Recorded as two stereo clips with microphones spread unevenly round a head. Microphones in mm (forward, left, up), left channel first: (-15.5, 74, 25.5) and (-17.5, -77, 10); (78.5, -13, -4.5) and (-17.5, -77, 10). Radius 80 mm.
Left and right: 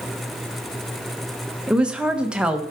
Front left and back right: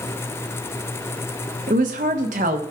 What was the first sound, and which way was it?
A woman speaking, 175° right.